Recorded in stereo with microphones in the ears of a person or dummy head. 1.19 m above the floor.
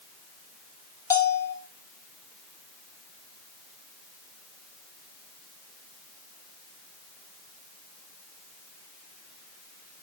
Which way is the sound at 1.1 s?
15° left (ahead or behind).